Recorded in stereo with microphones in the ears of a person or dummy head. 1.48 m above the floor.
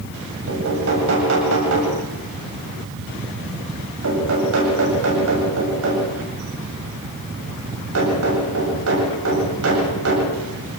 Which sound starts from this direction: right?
Knocking, at 0.5 s.